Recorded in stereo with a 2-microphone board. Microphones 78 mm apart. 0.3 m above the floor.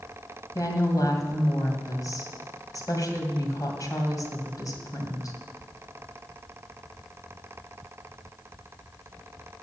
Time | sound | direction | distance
0.6 | a woman speaking | 50° left (ahead or behind) | 2 m